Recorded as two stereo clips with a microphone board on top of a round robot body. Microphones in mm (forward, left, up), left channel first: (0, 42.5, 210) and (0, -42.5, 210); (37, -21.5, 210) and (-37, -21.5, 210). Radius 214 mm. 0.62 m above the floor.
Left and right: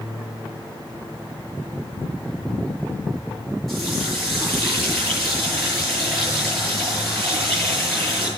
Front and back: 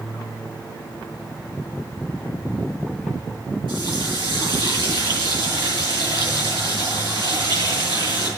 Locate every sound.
3.7 s a running tap: straight behind, 9.5 m